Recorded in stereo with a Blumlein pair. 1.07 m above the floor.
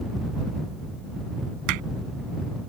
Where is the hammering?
45° right.